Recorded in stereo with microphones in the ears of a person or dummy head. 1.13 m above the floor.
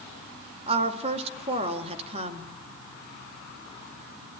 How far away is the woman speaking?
About 2 m.